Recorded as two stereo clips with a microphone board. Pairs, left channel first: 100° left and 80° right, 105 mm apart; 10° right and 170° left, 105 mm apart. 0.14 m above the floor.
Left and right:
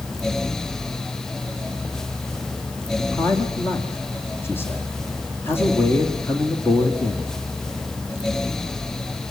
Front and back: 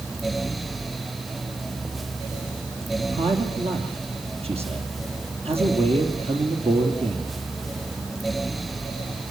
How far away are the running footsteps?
I don't hear running footsteps.